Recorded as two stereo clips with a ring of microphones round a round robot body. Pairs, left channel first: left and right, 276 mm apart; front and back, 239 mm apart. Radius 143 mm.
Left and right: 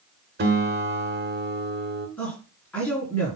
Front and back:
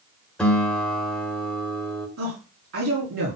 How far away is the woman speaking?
About 4.5 m.